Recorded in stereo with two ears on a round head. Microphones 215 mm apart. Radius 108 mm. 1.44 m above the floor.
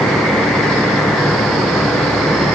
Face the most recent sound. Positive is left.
No sound to turn to.